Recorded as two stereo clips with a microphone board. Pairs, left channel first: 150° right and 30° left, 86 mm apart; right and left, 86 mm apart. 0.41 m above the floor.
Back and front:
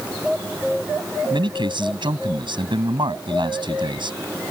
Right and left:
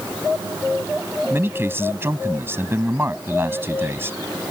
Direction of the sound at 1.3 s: 30° left.